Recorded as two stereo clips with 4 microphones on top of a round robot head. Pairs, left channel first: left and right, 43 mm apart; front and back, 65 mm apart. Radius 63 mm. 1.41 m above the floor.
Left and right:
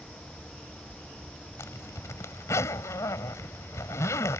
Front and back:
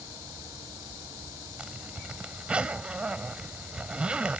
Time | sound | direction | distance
1.6 | a zipper | 105° left | ?